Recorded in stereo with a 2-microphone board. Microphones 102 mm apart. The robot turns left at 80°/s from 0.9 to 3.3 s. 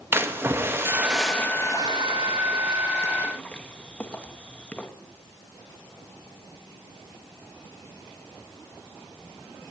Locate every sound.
0.1 s a splash: 20° right (ahead or behind), 0.7 m; by 4.9 s 10° left (ahead or behind), 0.7 m